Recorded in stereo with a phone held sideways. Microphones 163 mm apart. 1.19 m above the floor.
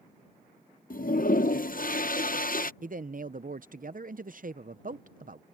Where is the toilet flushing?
60° left (ahead or behind).